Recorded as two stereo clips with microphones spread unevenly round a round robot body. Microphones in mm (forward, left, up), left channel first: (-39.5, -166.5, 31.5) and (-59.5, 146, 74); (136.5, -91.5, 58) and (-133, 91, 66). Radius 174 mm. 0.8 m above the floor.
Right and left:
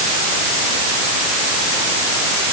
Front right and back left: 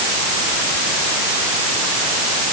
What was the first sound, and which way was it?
Only background noise.